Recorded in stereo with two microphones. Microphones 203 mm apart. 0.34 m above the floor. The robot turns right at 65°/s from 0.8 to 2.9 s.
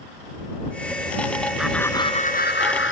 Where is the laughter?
5° right; by 2.9 s 80° left.